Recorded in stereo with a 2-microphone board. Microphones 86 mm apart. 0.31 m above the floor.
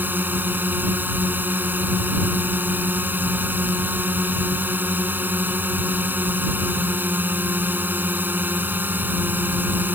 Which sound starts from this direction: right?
A drone, at 0.0 s.